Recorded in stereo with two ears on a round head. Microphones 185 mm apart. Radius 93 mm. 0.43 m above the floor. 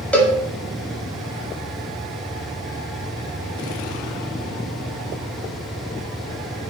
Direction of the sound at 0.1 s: 5° left (ahead or behind).